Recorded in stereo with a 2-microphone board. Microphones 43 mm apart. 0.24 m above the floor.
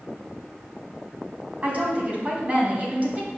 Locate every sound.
1.6 s a woman speaking: 35° right (ahead or behind), 2.0 m